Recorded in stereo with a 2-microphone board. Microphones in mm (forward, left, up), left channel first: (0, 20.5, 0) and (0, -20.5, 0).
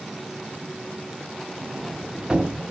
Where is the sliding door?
20° right (ahead or behind), 0.8 m.